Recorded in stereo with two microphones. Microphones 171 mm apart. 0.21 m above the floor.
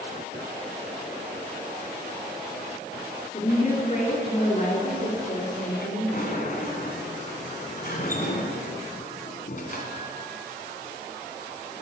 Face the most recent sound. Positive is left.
turn(degrees=50)  # may be behind; listen again after turning